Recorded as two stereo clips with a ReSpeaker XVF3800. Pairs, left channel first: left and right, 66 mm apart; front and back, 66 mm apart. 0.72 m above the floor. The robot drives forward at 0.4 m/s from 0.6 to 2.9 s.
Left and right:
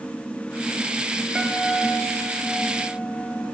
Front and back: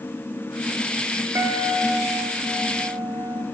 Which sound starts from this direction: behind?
A guitar, at 1.4 s.